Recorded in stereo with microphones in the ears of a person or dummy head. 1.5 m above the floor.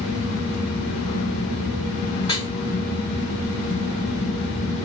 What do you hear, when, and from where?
2.2 s dripping: 30° left (ahead or behind), 4 m